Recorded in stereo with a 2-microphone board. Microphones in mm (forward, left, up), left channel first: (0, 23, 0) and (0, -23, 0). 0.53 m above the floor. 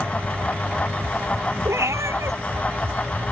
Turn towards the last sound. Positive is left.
turn(degrees=-85)